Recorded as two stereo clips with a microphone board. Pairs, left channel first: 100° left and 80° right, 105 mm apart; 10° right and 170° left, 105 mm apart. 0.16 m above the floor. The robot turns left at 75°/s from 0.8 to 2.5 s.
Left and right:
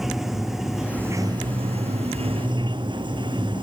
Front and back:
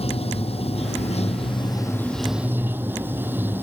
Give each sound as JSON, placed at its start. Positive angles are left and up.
{"t": 0.0, "sound": "running water", "azimuth_deg": 5}